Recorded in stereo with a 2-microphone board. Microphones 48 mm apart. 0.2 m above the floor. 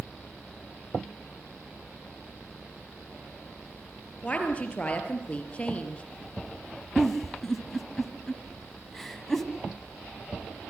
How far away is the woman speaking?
About 4.5 m.